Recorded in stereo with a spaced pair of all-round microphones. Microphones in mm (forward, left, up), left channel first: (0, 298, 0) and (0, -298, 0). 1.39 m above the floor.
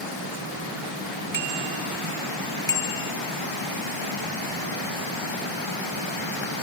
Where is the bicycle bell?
50° left (ahead or behind); by 3.1 s 70° left (ahead or behind).